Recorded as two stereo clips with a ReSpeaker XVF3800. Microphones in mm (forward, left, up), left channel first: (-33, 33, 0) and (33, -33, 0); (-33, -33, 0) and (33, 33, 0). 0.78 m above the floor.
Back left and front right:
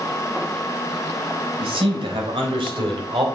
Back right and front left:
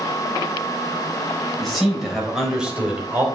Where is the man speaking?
45° right, 4 m; by 3.2 s 25° right, 3 m.